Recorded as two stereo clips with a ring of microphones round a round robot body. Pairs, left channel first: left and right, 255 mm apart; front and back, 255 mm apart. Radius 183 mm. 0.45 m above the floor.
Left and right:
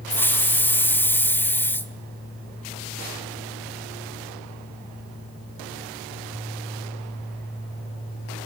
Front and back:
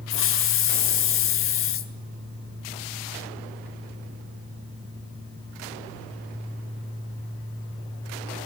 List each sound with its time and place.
0.1 s a hiss: 10° left, 1.7 m